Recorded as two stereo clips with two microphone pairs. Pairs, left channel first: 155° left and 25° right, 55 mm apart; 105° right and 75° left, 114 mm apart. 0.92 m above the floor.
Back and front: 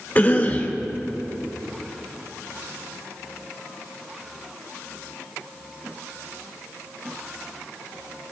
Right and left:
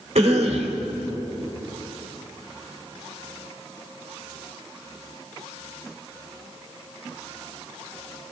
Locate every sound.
0.1 s a cough: 95° left, 2.5 m